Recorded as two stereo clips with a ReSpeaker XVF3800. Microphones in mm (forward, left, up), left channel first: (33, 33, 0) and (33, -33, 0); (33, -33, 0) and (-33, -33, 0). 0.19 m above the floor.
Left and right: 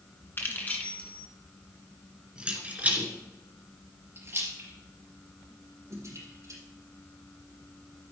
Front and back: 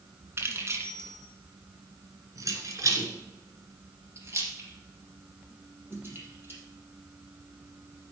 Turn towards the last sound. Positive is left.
turn(degrees=-125)